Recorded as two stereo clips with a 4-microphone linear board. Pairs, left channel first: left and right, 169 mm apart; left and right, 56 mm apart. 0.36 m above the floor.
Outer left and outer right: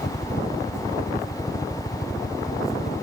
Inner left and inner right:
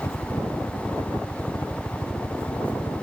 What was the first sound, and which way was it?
A helicopter, 65° left (ahead or behind).